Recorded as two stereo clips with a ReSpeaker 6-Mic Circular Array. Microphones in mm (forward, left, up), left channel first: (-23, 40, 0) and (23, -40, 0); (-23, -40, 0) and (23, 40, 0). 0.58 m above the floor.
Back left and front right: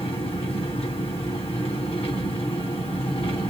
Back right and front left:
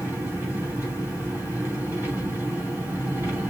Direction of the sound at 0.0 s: 130° left.